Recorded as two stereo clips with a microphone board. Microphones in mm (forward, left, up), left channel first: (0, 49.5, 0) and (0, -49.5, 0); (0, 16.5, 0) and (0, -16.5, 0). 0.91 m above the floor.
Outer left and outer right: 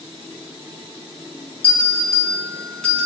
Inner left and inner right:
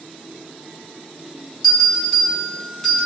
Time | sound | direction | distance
1.6 | a bell | 10° left (ahead or behind) | 5 m